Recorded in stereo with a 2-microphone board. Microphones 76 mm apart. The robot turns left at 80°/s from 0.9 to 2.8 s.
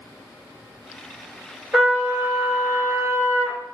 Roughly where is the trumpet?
Ahead.